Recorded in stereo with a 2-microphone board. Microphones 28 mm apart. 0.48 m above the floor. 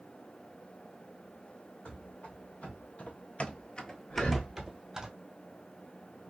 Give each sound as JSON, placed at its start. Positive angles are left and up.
{"t": 1.9, "sound": "running footsteps", "side_deg": 45, "distance_m": 1.6}
{"t": 4.1, "sound": "breathing", "side_deg": 50, "distance_m": 1.0}